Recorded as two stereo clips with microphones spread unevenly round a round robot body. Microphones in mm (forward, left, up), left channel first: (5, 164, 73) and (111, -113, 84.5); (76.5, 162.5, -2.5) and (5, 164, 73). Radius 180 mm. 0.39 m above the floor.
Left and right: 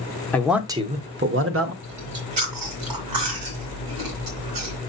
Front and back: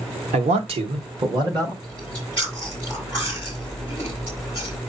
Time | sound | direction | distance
0.3 | a man speaking | 175° right | 0.9 m
1.8 | chewing | 70° right | 3 m